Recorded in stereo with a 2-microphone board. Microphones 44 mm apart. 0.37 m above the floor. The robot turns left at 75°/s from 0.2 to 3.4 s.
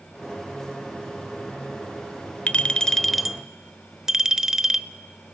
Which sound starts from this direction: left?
A clink, at 2.5 s.